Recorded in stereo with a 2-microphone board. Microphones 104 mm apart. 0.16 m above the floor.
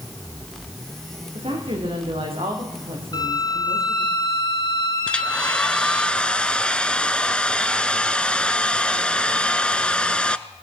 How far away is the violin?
About 2.0 m.